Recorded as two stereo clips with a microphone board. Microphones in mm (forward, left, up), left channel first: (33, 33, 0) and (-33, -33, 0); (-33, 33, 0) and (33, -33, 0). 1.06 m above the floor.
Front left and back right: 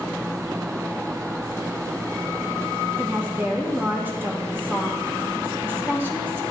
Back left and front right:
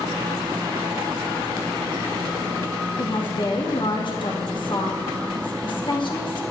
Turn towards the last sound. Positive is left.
turn(degrees=160)